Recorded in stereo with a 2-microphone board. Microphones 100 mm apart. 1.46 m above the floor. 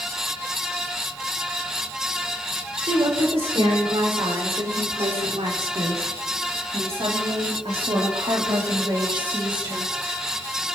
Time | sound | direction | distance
2.8 | a woman speaking | 70° right (ahead or behind) | 6 m